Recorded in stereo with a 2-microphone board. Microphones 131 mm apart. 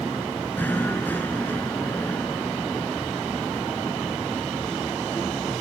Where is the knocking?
15° left (ahead or behind).